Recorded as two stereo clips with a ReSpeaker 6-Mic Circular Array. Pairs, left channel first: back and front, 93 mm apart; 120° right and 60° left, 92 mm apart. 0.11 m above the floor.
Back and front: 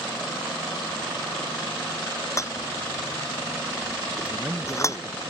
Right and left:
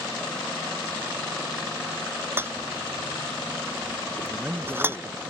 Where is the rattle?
125° left.